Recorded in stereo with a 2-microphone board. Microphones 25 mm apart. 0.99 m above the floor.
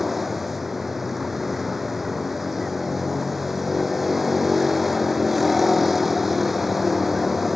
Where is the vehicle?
10° right (ahead or behind).